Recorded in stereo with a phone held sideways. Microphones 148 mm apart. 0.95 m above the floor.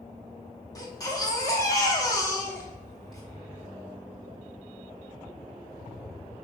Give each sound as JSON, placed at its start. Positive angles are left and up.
{"t": 0.8, "sound": "a baby crying", "side_deg": 25, "distance_m": 1.0}